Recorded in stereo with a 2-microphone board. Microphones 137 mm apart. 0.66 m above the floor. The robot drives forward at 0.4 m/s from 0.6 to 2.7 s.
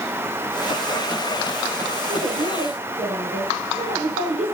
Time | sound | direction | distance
2.1 | a woman speaking | 60° right (ahead or behind) | 8 m